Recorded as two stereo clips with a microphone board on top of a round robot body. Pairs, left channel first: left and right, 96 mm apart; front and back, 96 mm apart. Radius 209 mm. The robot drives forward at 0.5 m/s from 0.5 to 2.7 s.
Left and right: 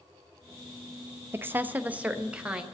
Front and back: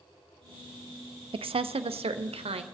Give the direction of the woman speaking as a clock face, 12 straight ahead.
5 o'clock.